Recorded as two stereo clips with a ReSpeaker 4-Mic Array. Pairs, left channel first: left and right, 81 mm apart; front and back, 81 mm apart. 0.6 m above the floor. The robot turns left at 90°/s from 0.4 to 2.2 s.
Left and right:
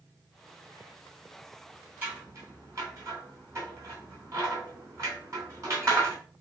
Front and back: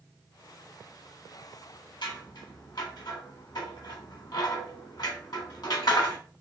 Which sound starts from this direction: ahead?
Scissors, at 2.0 s.